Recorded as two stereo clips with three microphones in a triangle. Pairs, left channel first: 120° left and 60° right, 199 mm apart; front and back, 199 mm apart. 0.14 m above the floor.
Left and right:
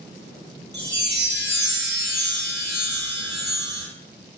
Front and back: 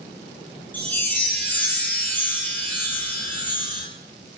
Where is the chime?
80° right, 0.8 m.